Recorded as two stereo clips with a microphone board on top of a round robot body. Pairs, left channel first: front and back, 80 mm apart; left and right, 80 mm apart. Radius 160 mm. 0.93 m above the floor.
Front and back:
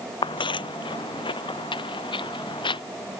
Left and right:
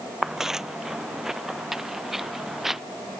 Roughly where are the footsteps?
Ahead.